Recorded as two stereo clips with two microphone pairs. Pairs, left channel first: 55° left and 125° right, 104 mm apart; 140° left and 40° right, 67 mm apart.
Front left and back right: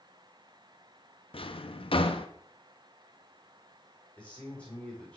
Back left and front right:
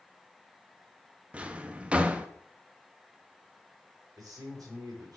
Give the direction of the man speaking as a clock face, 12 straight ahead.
1 o'clock.